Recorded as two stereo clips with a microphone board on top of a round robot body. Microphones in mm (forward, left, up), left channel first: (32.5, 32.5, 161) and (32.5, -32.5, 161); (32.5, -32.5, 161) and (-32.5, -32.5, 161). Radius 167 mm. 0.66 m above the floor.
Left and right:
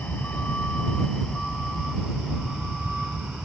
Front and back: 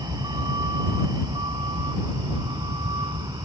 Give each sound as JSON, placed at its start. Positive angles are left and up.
{"t": 0.0, "sound": "a vehicle", "azimuth_deg": 160}